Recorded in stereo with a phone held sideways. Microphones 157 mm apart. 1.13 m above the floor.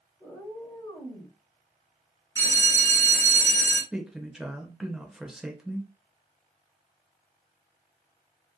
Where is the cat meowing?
5° left (ahead or behind), 0.9 m; by 1.4 s 35° left (ahead or behind), 1.2 m.